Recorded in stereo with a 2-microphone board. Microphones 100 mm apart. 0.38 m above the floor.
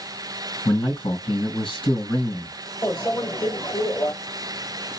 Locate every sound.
0.7 s a man speaking: 60° left (ahead or behind), 2.5 m
2.8 s a microwave: 40° left (ahead or behind), 1.4 m